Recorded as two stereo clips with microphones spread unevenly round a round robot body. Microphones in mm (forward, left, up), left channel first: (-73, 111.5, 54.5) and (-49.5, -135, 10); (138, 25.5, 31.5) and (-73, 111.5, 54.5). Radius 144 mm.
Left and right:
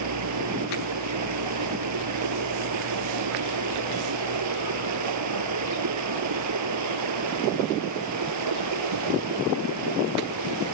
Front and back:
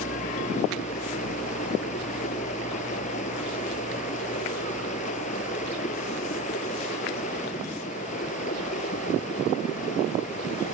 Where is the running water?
90° right.